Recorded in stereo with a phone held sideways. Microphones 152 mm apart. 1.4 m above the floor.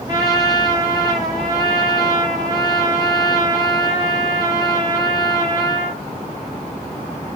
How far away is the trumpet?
About 1.3 m.